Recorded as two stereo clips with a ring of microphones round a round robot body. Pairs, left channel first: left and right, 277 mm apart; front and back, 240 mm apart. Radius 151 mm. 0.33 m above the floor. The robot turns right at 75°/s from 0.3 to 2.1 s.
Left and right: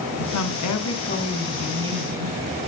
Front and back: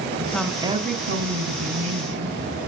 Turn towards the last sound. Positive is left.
turn(degrees=-145)